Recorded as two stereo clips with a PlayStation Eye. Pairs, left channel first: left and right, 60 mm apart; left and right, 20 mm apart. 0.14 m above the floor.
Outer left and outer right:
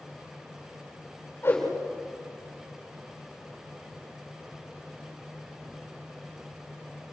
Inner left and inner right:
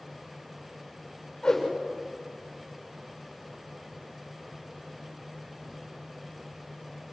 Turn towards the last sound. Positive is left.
turn(degrees=35)  # may be behind; listen again after turning